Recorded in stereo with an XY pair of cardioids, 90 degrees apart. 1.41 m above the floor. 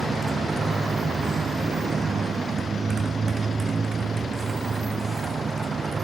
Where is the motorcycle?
40° right.